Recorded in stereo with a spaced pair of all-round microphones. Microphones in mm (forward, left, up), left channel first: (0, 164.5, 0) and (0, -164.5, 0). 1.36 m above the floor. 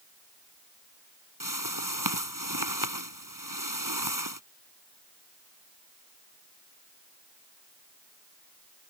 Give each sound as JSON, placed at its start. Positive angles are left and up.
{"t": 1.4, "sound": "a whoosh", "side_deg": -85}